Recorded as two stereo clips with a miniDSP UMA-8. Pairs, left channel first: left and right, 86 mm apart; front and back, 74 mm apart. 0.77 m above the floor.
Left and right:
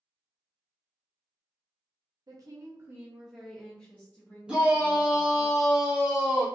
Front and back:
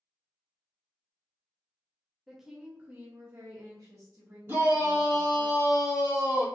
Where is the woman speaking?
90° right, 0.7 m; by 5.5 s 135° left, 1.3 m.